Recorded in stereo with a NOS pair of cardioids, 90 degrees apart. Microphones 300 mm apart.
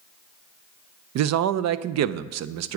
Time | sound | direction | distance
1.1 | a man speaking | 65° right | 0.5 m